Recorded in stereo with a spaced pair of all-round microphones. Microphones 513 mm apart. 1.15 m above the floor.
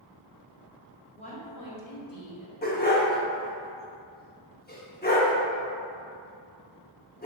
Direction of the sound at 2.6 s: 20° left (ahead or behind).